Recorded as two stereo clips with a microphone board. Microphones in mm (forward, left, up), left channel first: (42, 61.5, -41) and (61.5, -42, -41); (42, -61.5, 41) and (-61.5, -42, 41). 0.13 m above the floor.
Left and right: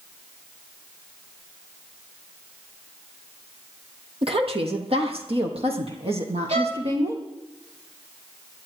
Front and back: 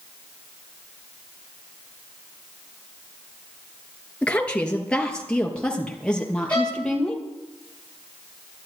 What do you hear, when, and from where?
4.2 s a woman speaking: 90° right, 2.5 m; by 7.2 s 95° right, 4.5 m
6.5 s a violin: 90° right, 8 m